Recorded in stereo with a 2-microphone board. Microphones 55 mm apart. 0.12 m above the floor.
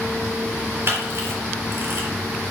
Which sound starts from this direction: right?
A camera shutter, at 0.9 s.